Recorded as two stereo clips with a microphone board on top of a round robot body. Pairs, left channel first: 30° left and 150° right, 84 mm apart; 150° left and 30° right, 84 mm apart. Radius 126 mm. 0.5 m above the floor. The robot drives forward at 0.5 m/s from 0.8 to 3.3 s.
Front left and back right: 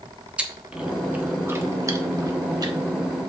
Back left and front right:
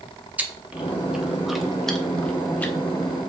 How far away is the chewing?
About 1.3 m.